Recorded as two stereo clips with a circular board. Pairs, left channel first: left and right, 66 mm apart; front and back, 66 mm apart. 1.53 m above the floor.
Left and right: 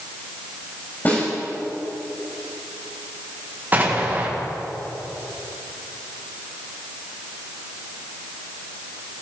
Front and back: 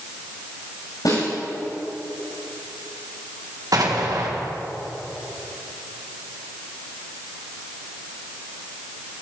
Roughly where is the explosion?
Behind right.